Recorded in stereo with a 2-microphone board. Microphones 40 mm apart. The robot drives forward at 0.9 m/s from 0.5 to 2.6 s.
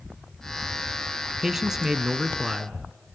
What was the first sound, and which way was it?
A man speaking, 10° right (ahead or behind).